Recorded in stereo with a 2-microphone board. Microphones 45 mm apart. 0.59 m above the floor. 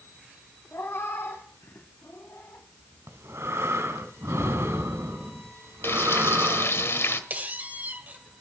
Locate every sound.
0.7 s a cat meowing: 65° left (ahead or behind), 2.5 m
3.1 s breathing: 75° right (ahead or behind), 1.9 m
5.8 s frying: 65° left (ahead or behind), 1.5 m
7.3 s a squeak: 40° right (ahead or behind), 2 m